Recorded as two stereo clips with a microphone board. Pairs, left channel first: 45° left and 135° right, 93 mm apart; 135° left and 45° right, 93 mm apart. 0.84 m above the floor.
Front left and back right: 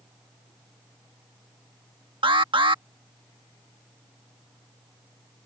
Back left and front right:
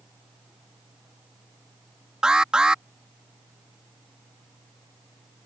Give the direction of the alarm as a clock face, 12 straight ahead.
4 o'clock.